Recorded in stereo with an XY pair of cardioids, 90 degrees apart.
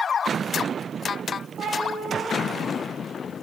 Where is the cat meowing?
65° right, 5 m; by 3.4 s 60° right, 6 m.